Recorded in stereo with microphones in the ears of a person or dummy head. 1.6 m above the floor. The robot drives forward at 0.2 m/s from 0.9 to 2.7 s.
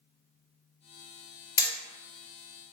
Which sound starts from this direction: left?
Hammering, at 1.6 s.